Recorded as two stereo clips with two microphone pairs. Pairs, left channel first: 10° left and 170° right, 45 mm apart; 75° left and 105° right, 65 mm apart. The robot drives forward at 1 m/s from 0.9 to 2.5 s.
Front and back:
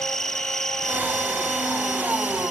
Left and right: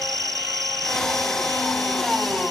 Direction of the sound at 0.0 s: 75° right.